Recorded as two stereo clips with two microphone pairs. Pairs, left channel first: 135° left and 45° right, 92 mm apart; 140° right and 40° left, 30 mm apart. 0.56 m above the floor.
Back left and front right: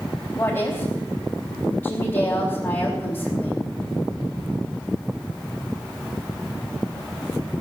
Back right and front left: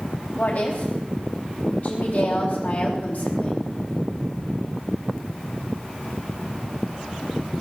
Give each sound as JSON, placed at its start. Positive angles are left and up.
{"t": 0.4, "sound": "a woman speaking", "azimuth_deg": -155, "distance_m": 4.0}